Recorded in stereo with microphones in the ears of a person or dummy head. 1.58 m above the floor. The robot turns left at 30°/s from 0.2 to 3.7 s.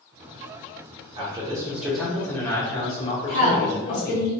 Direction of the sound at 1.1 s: 155° right.